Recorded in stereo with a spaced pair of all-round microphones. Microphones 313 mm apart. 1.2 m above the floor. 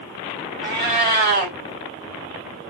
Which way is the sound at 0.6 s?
35° right (ahead or behind).